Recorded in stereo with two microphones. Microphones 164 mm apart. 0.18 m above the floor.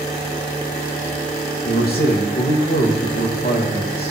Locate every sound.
1.6 s a man speaking: 70° left (ahead or behind), 5 m